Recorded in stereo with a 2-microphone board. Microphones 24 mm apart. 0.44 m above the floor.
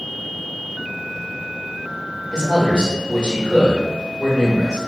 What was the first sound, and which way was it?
A man speaking, 40° left (ahead or behind).